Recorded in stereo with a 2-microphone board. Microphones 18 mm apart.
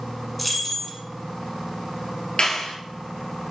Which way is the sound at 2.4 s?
55° left (ahead or behind).